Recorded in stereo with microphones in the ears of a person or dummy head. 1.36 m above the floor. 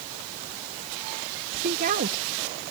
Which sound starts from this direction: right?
A woman speaking, at 1.6 s.